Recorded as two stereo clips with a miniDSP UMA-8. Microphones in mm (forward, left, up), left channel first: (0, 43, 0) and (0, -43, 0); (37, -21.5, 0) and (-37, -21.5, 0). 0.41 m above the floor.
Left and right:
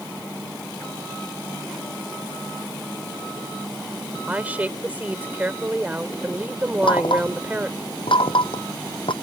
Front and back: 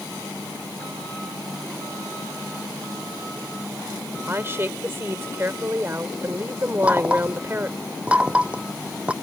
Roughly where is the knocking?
Left.